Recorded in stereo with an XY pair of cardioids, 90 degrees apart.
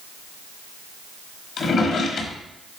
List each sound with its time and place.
1.6 s a drawer: 65° left, 1.5 m